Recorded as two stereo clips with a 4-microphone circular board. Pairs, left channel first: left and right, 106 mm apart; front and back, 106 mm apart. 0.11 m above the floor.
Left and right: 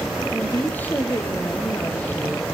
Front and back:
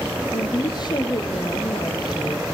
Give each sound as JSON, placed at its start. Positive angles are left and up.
{"t": 0.3, "sound": "a woman speaking", "azimuth_deg": 25, "distance_m": 1.8}